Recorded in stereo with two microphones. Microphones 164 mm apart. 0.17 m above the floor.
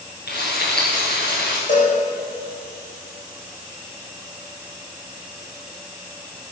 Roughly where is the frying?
Left.